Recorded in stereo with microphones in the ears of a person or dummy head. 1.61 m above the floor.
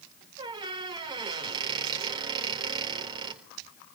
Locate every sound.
0.4 s a squeak: 25° right (ahead or behind), 4 m